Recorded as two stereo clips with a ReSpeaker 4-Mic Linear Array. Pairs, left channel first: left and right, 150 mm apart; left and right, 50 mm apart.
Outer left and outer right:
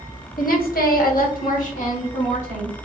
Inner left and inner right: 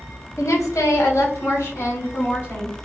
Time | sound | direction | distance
0.4 | a woman speaking | 70° left (ahead or behind) | 1.0 m